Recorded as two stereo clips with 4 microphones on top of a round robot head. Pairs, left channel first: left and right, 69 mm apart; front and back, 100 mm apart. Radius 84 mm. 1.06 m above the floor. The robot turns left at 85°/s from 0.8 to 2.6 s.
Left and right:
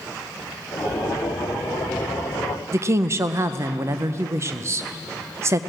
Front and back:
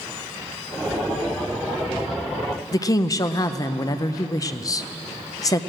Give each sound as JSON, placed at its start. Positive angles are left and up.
{"t": 2.7, "sound": "a woman speaking", "azimuth_deg": -50, "distance_m": 0.6}